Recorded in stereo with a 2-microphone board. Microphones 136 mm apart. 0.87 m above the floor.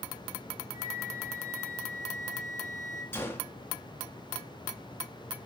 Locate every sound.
0.7 s a flute: 70° left (ahead or behind), 5 m
3.1 s a gunshot: 15° left (ahead or behind), 1.9 m